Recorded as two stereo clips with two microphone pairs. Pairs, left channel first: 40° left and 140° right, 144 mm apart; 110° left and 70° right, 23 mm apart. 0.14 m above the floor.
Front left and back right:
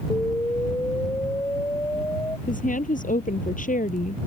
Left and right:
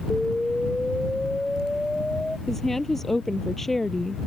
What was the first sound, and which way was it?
An explosion, 95° left.